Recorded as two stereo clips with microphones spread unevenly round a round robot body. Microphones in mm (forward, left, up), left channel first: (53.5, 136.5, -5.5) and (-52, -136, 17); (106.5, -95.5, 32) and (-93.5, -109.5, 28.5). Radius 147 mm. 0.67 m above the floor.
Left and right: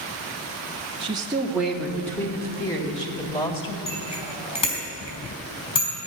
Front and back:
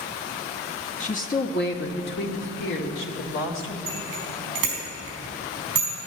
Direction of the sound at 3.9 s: 145° left.